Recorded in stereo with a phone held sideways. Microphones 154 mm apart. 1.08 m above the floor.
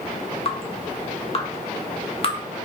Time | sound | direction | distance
0.5 | dripping | 40° left (ahead or behind) | 0.5 m